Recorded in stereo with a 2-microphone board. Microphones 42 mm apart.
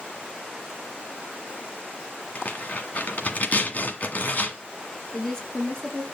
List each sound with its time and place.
2.4 s tearing paper: 40° left (ahead or behind), 1.7 m
5.1 s a woman speaking: 10° left (ahead or behind), 3.5 m